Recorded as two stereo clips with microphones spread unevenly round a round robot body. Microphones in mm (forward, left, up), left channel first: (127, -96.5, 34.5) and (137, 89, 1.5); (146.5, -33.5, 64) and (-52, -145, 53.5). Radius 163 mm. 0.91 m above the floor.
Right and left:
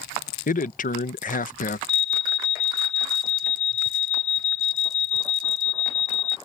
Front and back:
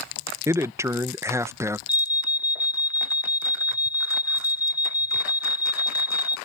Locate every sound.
0.5 s a man speaking: 85° right
1.9 s an alarm: 40° right